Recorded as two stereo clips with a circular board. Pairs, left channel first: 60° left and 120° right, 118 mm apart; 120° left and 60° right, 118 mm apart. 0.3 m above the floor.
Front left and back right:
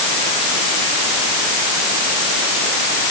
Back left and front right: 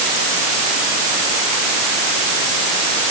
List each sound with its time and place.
Only background noise.